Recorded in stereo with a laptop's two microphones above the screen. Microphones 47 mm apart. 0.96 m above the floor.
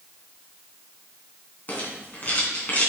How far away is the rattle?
About 3 m.